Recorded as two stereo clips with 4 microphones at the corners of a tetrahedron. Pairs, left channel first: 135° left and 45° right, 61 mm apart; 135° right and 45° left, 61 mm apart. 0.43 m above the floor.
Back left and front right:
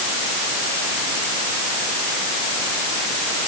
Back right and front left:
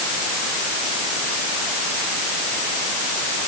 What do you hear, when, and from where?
Only background noise.